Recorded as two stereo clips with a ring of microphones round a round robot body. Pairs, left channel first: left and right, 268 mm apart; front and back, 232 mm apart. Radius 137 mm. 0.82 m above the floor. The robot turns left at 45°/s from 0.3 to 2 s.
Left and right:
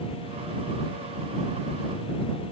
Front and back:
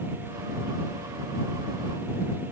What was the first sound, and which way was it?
Only background noise.